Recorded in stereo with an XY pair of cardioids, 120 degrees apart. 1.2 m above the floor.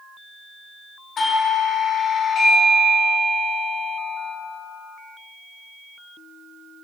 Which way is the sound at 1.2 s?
45° left.